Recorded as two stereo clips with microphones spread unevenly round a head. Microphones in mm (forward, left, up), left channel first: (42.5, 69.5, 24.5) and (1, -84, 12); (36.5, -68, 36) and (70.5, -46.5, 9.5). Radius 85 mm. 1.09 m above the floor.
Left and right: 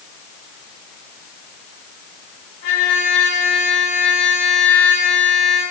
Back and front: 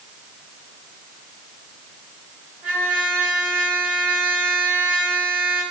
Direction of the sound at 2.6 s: 95° left.